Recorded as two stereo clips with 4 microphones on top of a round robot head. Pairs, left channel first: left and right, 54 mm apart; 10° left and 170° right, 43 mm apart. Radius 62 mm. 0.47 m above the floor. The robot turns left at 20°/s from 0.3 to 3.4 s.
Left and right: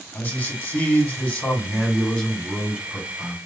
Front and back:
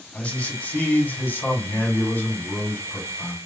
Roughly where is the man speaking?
Ahead left.